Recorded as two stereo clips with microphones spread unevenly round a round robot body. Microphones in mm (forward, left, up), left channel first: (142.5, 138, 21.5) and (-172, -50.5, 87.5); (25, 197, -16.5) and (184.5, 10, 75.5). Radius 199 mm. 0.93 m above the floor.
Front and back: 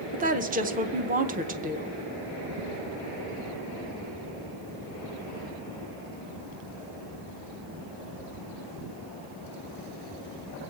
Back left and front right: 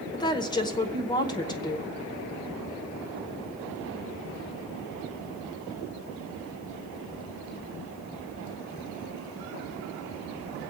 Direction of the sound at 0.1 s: 140° left.